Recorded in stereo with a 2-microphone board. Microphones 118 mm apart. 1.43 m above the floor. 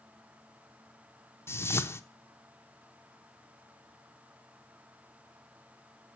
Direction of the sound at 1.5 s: 20° left (ahead or behind).